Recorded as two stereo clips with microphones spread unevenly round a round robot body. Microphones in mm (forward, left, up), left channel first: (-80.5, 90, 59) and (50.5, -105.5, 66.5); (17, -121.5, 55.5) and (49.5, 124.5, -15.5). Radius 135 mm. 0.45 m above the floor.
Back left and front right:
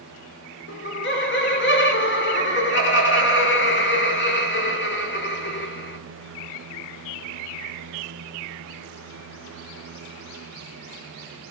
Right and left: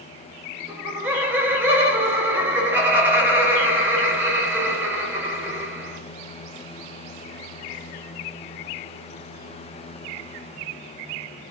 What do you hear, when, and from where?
0.7 s laughter: 155° left, 1.5 m